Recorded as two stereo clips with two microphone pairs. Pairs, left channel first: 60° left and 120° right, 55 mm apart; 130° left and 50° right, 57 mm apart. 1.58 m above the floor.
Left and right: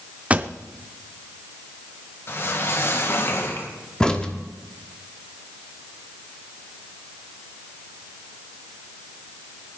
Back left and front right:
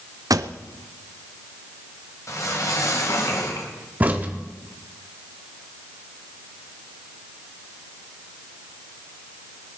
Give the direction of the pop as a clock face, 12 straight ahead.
2 o'clock.